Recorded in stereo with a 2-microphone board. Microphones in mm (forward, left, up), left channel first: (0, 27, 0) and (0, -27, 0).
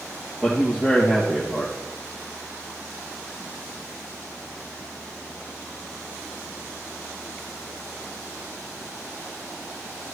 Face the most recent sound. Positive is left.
turn(degrees=-20)  # may be behind; listen again after turning